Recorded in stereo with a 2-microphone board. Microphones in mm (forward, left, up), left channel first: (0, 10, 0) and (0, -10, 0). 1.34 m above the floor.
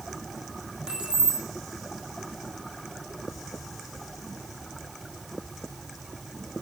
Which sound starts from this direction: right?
Keys jangling, at 0.9 s.